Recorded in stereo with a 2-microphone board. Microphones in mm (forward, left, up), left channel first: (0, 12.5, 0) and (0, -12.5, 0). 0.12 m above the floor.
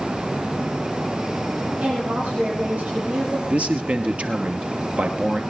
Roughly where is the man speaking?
Right.